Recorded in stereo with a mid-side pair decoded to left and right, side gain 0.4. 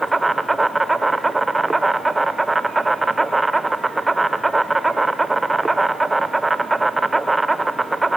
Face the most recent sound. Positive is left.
turn(degrees=-20)